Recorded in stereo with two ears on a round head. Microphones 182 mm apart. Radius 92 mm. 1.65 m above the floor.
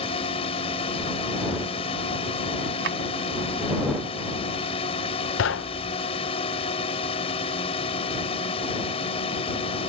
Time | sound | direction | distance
0.0 | a drone | 25° left (ahead or behind) | ?
2.8 | a drawer | 65° right (ahead or behind) | ?
5.4 | knocking | 65° left (ahead or behind) | ?